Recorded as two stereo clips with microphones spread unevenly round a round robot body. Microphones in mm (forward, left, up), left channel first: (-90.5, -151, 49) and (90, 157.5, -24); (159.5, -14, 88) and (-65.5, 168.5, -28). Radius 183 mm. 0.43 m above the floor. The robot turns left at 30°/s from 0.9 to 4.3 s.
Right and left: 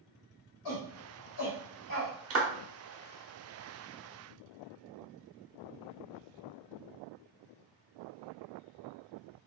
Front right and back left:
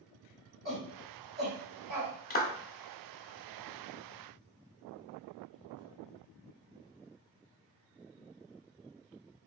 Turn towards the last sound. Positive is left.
turn(degrees=-25)